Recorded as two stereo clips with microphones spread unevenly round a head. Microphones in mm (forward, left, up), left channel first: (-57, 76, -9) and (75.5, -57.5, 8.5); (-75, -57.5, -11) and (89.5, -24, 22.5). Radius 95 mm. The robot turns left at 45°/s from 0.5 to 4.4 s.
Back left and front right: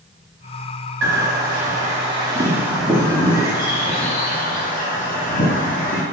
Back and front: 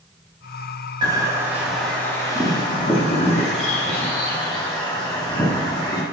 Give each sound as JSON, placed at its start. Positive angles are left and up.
{"t": 1.0, "sound": "a bird", "azimuth_deg": -55, "distance_m": 0.7}